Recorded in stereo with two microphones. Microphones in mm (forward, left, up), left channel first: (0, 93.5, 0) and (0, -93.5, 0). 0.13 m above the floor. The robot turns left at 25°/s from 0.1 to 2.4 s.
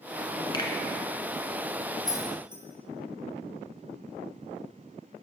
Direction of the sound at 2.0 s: 20° left (ahead or behind).